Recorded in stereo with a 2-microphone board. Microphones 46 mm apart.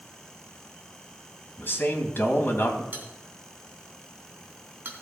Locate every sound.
1.6 s a man speaking: 50° left (ahead or behind), 2.5 m
2.9 s a bell: 45° right (ahead or behind), 3 m